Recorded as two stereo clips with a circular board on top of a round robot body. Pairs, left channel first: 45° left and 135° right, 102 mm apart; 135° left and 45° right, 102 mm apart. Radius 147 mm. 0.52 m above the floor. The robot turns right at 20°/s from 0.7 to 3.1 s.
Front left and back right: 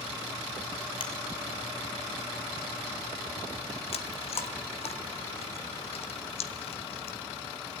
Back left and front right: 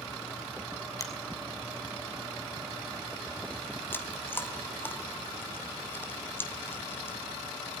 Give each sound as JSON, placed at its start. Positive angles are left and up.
{"t": 1.0, "sound": "a finger snap", "azimuth_deg": 80, "distance_m": 3.0}
{"t": 3.9, "sound": "chewing", "azimuth_deg": 65, "distance_m": 1.9}